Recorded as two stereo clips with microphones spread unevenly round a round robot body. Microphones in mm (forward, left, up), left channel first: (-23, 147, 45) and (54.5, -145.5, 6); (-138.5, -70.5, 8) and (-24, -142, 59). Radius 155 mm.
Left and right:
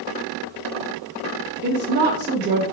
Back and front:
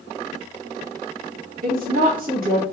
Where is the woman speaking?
40° right, 0.9 m.